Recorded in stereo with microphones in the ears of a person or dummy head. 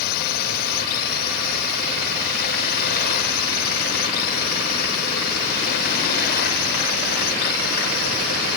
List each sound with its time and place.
0.0 s a drone: 55° left (ahead or behind)